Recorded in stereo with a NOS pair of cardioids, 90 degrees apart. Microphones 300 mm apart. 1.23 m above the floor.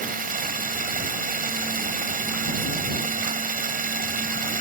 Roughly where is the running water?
Ahead right.